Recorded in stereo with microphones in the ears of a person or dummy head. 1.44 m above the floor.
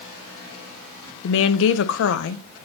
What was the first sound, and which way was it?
A woman speaking, 65° left (ahead or behind).